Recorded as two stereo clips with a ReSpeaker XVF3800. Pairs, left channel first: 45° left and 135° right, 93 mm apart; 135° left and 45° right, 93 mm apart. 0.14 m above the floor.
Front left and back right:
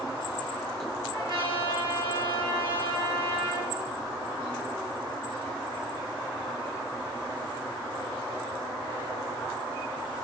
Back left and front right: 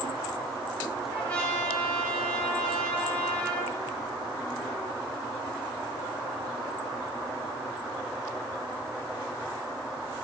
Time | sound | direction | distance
1.1 | a trumpet | 150° right | 6 m